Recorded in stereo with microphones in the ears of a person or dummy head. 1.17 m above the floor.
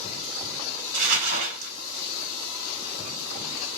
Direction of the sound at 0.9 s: 60° right (ahead or behind).